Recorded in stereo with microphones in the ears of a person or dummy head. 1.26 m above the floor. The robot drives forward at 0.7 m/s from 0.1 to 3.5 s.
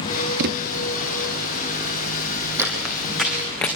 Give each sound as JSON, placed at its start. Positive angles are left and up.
{"t": 0.4, "sound": "a thud", "side_deg": -60, "distance_m": 0.9}
{"t": 2.6, "sound": "footsteps", "side_deg": -15, "distance_m": 3.5}